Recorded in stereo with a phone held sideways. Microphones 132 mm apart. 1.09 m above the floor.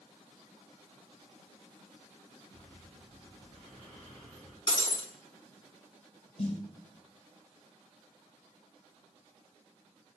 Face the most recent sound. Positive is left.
turn(degrees=50)  # may be behind; listen again after turning